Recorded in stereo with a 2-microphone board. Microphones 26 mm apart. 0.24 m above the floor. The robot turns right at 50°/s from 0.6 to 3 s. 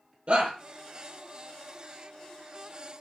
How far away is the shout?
About 6 m.